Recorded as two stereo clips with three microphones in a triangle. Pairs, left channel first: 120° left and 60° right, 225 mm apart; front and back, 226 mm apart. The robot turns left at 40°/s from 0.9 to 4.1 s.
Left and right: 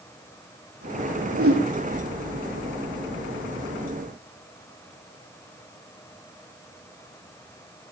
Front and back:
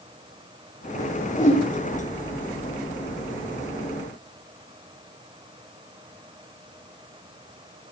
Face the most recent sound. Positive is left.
turn(degrees=-165)